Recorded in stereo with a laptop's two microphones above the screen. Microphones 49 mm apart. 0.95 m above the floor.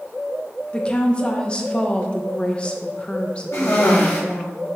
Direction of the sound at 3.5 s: 65° left (ahead or behind).